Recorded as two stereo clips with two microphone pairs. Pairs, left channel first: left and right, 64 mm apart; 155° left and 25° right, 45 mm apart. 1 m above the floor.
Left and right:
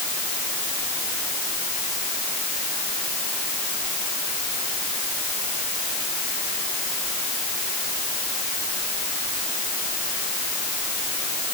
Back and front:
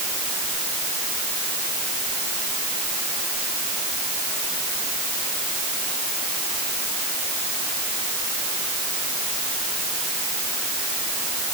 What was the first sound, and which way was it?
Only background noise.